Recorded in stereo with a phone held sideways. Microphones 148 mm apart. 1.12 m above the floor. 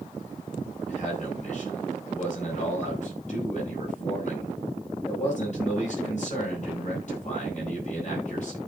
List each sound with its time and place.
0.9 s a man speaking: 55° left (ahead or behind), 6 m